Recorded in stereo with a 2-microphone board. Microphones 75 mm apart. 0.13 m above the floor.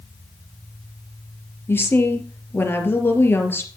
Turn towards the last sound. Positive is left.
turn(degrees=30)  # may be behind; listen again after turning